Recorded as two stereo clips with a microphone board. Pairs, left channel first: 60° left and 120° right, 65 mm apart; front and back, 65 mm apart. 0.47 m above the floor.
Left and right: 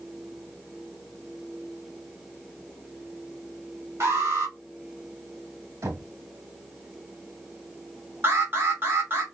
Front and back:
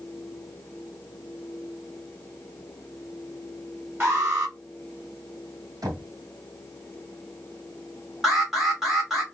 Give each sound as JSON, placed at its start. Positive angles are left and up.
{"t": 4.0, "sound": "an alarm", "azimuth_deg": -130, "distance_m": 2.5}
{"t": 5.8, "sound": "knocking", "azimuth_deg": -155, "distance_m": 2.5}
{"t": 8.2, "sound": "an alarm", "azimuth_deg": -100, "distance_m": 2.0}